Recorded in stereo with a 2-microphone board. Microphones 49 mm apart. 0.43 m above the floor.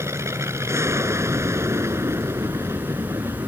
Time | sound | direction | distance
0.0 | an aircraft | 75° right (ahead or behind) | ?